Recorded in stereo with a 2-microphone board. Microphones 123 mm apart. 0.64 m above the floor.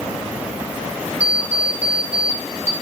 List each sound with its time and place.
1.2 s an alarm clock: 55° right (ahead or behind), 0.8 m